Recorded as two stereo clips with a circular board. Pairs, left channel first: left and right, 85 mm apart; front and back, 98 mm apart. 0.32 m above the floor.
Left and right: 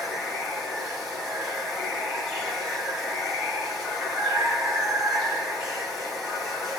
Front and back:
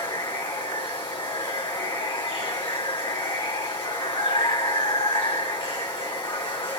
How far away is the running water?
About 1.5 m.